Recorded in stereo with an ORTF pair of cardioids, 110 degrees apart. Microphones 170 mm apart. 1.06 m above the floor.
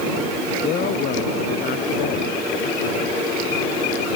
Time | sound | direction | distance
0.6 | a woman speaking | 65° left | ?